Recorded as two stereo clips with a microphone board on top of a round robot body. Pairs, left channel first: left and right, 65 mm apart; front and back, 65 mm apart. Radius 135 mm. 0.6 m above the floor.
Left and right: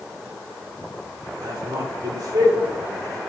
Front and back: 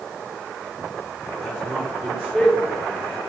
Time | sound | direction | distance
1.4 | a man speaking | 90° right | 3.5 m